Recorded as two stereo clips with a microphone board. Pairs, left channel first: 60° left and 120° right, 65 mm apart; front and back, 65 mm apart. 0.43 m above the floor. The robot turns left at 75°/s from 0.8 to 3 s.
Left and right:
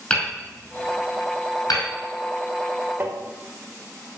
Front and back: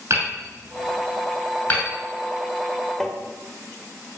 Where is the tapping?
80° right, 1.6 m.